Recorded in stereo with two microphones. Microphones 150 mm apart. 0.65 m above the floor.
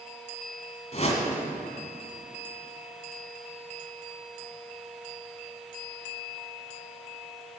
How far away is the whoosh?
About 1.7 m.